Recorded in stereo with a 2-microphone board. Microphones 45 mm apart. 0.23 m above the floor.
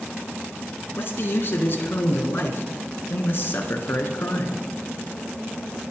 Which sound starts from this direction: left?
A man speaking, at 1.0 s.